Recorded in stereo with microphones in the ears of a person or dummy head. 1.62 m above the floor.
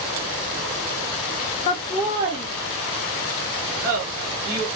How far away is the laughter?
About 0.5 m.